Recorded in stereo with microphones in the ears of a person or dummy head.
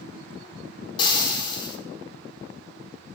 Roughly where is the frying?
Left.